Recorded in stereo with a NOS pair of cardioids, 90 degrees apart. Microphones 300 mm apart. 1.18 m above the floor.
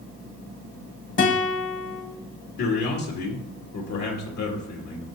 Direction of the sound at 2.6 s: 70° left.